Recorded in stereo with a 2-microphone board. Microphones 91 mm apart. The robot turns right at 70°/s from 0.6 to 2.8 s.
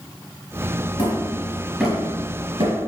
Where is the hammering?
50° left (ahead or behind), 4 m; by 2.8 s 65° right (ahead or behind), 4 m.